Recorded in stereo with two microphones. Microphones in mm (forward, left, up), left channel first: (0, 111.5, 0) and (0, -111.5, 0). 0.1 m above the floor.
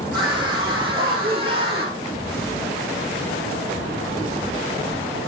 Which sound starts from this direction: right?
A scream, at 0.1 s.